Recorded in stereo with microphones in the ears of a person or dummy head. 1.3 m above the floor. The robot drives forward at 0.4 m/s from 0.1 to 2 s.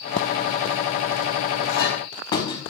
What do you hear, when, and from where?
1.7 s a clink: 25° left (ahead or behind), 3.5 m